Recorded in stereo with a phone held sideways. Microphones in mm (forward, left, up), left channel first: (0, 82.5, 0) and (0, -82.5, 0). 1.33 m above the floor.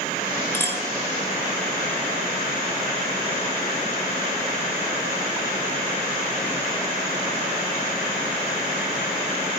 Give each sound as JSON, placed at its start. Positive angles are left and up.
{"t": 0.5, "sound": "a clink", "side_deg": 15, "distance_m": 1.5}